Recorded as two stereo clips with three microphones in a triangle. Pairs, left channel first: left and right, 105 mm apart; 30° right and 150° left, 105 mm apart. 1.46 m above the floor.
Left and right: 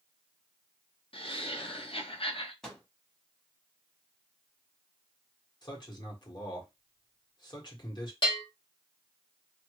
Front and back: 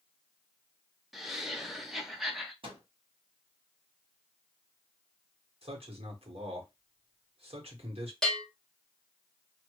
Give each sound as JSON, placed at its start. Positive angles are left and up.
{"t": 1.1, "sound": "laughter", "azimuth_deg": 65, "distance_m": 0.8}
{"t": 2.6, "sound": "a microwave", "azimuth_deg": 175, "distance_m": 1.1}
{"t": 5.6, "sound": "a man speaking", "azimuth_deg": 135, "distance_m": 1.4}
{"t": 8.2, "sound": "a bell", "azimuth_deg": 55, "distance_m": 1.3}